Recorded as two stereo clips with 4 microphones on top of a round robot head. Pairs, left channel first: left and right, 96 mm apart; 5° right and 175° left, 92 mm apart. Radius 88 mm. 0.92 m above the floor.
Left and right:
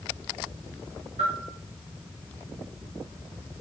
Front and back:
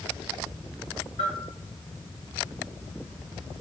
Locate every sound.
1.2 s a bell: 45° right, 3 m